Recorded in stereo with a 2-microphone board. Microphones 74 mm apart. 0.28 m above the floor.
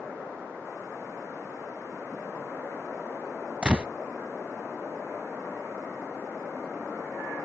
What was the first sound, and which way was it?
A gunshot, 10° right (ahead or behind).